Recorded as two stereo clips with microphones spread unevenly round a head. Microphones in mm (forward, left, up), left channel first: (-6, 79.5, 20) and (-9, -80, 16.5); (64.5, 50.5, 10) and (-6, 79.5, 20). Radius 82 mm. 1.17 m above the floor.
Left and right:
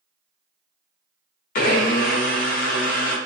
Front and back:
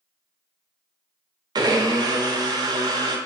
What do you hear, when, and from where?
1.6 s a blender: 130° left, 0.5 m